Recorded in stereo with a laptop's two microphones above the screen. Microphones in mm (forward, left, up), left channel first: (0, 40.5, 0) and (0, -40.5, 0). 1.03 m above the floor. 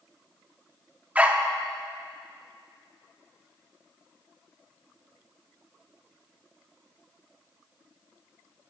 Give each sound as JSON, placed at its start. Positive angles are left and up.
{"t": 1.1, "sound": "a dog barking", "side_deg": -15, "distance_m": 0.6}